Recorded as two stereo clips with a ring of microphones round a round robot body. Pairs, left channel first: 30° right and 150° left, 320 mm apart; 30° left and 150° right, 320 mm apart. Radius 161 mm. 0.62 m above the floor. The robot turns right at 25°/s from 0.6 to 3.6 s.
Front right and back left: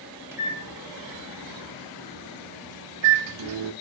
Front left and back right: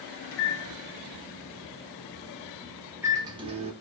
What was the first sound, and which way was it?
A microwave, 70° left.